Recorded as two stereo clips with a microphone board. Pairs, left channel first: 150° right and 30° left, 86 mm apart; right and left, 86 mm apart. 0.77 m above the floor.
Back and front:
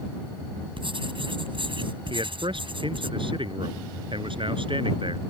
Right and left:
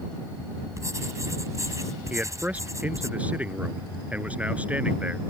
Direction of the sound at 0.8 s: 35° left.